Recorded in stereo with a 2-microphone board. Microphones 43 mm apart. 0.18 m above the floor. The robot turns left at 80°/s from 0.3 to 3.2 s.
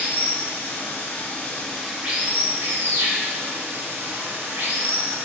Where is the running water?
125° left, 1.5 m; by 5.2 s 105° right, 1.5 m.